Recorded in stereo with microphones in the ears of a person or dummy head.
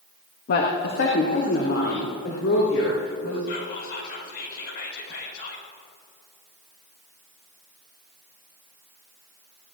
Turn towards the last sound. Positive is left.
turn(degrees=70)  # may be behind; listen again after turning